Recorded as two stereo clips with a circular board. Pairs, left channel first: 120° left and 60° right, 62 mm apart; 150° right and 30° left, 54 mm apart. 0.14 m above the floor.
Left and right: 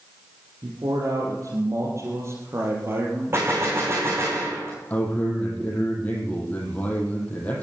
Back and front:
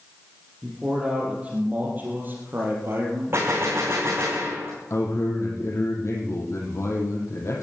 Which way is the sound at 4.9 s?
175° right.